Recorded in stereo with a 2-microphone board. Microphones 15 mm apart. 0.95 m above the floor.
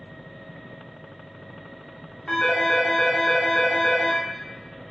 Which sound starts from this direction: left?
A phone ringing, at 2.3 s.